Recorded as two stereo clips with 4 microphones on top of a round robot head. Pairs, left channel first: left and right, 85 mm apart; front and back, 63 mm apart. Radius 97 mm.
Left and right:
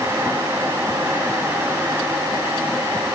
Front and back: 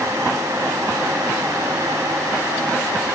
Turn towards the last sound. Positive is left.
No sound to turn to.